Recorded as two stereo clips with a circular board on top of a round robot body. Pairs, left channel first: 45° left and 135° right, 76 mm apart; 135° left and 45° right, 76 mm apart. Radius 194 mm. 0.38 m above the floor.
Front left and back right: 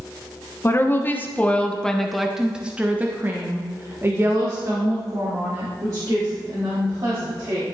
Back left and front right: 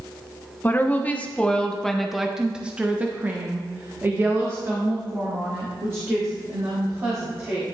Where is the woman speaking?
85° left, 1.6 m; by 7.7 s 95° right, 4 m.